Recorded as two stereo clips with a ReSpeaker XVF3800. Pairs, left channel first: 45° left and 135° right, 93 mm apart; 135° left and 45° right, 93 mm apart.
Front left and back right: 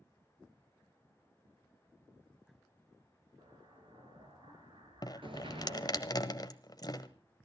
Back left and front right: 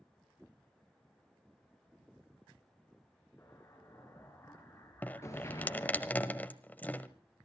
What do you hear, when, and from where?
3.4 s an explosion: 165° right, 4 m
5.0 s dripping: 65° left, 1.2 m